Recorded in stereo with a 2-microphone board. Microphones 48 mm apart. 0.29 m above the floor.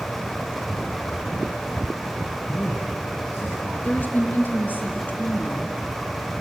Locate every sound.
2.5 s a man speaking: 35° left (ahead or behind), 4.5 m
3.8 s a woman speaking: 40° left (ahead or behind), 3.5 m